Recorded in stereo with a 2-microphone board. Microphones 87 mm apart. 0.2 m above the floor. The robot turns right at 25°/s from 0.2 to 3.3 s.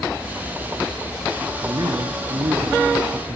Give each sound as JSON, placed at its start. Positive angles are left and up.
{"t": 1.6, "sound": "a man speaking", "azimuth_deg": -120, "distance_m": 2.5}